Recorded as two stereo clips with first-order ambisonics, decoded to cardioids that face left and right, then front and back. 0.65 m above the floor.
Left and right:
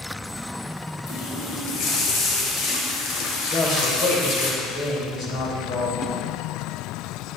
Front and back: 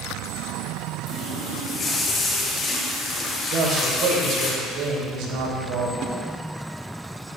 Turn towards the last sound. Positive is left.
turn(degrees=150)